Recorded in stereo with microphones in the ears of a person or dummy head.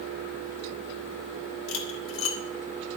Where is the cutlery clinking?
65° left (ahead or behind), 1.4 m.